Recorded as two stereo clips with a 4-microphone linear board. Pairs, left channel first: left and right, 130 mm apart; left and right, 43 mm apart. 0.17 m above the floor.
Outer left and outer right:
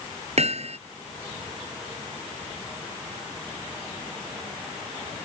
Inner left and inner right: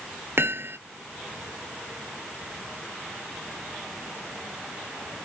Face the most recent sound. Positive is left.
turn(degrees=-55)  # may be behind; listen again after turning